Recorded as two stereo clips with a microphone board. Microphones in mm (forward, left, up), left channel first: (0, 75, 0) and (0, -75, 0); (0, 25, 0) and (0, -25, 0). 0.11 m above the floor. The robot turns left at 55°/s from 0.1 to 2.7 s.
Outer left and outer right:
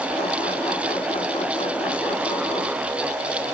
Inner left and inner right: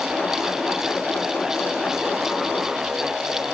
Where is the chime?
I don't hear a chime.